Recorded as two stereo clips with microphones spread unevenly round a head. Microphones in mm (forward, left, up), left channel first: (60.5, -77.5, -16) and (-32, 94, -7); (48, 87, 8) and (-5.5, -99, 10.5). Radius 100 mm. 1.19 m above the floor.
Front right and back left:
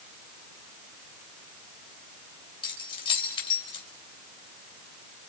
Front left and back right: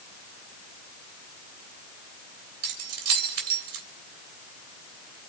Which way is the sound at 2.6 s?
130° right.